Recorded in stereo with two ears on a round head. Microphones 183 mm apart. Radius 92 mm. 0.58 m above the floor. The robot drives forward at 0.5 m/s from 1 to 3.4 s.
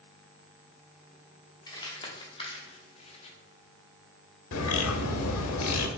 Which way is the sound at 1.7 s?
20° left (ahead or behind).